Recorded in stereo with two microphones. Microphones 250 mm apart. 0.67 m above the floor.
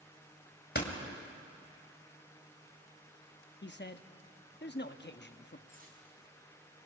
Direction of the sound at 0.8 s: 45° left (ahead or behind).